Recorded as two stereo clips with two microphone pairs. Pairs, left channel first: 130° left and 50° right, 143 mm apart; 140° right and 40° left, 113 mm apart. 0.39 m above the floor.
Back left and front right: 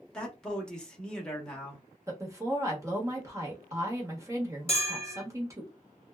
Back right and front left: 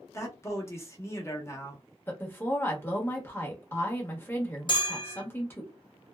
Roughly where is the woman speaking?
Right.